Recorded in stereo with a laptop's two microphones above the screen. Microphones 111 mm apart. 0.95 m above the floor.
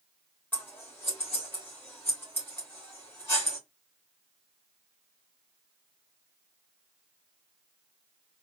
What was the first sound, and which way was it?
Scissors, 20° left (ahead or behind).